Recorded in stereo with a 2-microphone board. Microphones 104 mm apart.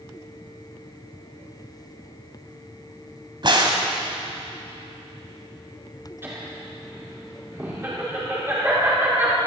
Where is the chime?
No chime in this recording.